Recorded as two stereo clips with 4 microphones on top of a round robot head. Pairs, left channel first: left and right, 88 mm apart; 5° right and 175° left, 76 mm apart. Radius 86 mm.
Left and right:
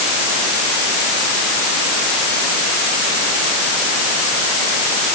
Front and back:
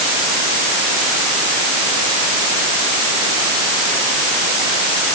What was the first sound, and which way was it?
Only background noise.